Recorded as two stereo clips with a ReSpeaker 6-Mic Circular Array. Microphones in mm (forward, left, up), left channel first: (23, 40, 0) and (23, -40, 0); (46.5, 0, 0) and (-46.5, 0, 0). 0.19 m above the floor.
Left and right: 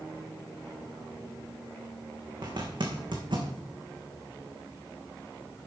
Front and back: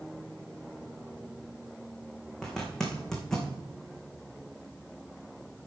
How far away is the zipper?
About 2.5 m.